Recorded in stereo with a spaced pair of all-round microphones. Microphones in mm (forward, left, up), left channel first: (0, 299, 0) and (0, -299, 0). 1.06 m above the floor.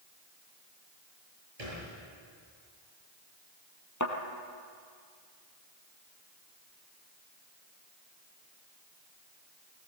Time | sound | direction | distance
1.6 | a thud | 85° right | 8.5 m
4.0 | a thud | 30° left (ahead or behind) | 3 m